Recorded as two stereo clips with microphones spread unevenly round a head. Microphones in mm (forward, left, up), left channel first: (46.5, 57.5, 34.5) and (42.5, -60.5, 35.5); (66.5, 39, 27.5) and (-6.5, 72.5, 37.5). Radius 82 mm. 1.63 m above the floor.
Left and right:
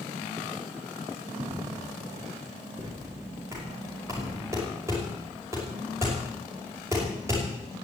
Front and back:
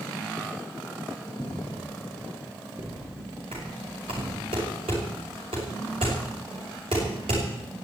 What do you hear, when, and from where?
1.4 s footsteps: 110° right, 3 m; by 4.5 s straight behind, 5 m
3.5 s knocking: 165° right, 5.5 m